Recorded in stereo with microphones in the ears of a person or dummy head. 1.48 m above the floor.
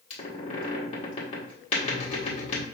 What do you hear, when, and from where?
0.1 s a squeak: 45° left (ahead or behind), 1.6 m